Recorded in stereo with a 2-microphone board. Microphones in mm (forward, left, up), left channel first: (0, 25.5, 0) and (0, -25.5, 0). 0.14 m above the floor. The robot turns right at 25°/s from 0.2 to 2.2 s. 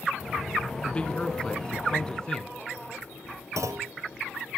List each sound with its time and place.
0.8 s a man speaking: 20° left (ahead or behind), 1.0 m; by 2.5 s 15° left (ahead or behind), 1.0 m
3.6 s a clunk: 75° right (ahead or behind), 1.0 m